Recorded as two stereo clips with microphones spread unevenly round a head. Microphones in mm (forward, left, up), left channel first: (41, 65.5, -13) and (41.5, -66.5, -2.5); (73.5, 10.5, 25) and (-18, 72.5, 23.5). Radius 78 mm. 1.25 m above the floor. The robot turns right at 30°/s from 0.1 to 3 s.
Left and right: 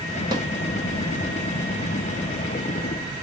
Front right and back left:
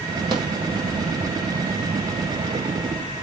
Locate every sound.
0.3 s a snare drum: 160° right, 1.2 m; by 0.5 s 155° right, 1.2 m